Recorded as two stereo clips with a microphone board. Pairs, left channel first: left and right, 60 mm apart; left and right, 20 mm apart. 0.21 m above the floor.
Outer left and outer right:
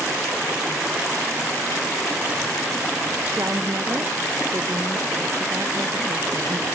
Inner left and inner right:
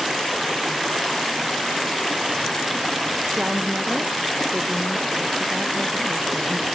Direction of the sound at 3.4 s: 50° right (ahead or behind).